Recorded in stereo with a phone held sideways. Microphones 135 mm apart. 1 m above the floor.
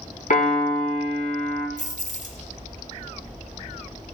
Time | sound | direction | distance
0.3 | a piano | 75° left (ahead or behind) | 1.5 m
1.8 | keys jangling | 60° left (ahead or behind) | 1.3 m